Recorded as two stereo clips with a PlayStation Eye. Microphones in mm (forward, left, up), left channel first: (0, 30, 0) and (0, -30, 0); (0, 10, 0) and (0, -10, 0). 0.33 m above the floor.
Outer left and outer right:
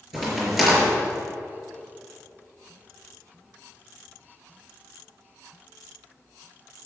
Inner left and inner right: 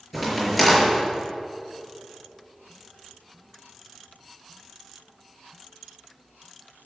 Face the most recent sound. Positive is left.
turn(degrees=-5)  # may be behind; listen again after turning